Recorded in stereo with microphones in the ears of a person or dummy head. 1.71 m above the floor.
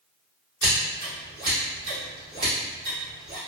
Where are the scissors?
20° right (ahead or behind), 1.8 m.